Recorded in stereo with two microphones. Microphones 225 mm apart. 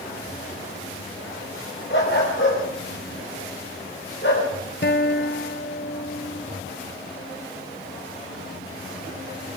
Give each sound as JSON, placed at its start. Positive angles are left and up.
{"t": 1.9, "sound": "a dog barking", "side_deg": 55, "distance_m": 8.5}
{"t": 4.8, "sound": "a guitar", "side_deg": 50, "distance_m": 0.8}